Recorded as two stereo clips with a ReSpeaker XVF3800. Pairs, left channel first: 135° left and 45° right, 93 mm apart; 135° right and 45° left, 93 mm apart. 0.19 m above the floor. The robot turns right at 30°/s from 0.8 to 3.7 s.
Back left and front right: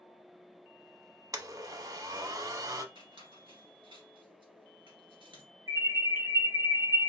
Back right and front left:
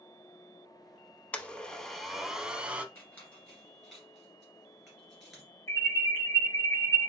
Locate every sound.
1.3 s a blender: 70° right, 0.6 m; by 2.9 s 20° right, 0.6 m
3.0 s a squeak: 70° right, 2.5 m; by 5.4 s 45° right, 2.5 m
5.7 s an alarm: 85° right, 3 m